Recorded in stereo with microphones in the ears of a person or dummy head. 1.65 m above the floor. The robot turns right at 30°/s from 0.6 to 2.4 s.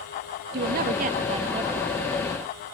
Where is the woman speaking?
60° right; by 1.9 s 20° right.